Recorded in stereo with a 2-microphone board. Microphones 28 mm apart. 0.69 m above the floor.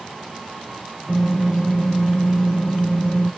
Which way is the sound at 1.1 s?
65° left (ahead or behind).